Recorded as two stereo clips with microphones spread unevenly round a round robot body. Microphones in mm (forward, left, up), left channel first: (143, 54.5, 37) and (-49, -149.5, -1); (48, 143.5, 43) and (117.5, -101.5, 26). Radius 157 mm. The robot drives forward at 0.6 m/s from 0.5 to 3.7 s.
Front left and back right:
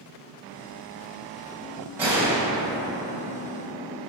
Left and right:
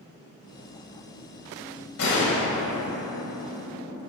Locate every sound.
2.0 s a gunshot: 145° left, 2.5 m; by 4.0 s 155° left, 3.5 m